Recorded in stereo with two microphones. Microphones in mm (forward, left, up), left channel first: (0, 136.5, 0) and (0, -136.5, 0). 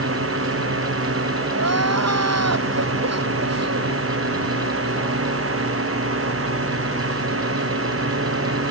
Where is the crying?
70° right (ahead or behind).